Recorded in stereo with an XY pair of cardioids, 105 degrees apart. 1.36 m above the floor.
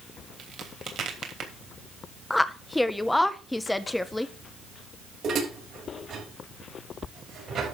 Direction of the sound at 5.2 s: 55° right.